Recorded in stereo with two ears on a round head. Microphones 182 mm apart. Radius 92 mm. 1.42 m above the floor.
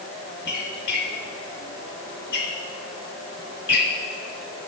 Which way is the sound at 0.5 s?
55° left (ahead or behind).